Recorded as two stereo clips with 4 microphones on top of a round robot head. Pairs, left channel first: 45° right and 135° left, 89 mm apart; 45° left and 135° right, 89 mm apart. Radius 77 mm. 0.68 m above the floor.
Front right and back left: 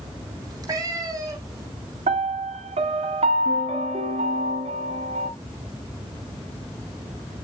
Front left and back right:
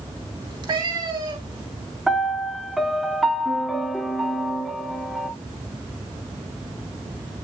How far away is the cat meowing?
About 3.5 m.